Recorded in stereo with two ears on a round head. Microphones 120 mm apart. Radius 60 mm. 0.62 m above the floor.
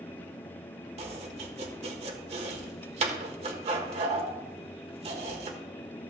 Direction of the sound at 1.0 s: 50° right (ahead or behind).